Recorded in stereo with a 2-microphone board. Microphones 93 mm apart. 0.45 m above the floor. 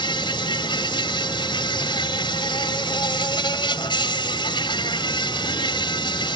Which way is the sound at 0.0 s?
60° left (ahead or behind).